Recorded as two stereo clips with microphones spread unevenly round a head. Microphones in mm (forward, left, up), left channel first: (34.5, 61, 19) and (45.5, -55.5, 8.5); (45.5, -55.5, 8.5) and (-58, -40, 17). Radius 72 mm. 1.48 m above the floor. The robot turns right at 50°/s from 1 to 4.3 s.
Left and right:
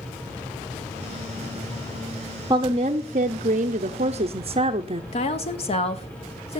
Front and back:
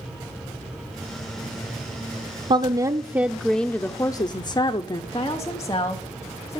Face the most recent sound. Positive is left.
turn(degrees=60)